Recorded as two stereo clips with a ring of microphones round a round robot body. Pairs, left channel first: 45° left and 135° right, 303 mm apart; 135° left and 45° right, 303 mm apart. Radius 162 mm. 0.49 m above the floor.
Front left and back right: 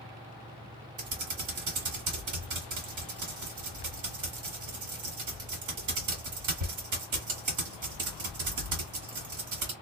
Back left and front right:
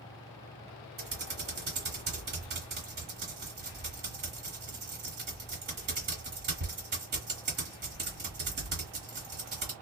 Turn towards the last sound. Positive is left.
turn(degrees=-105)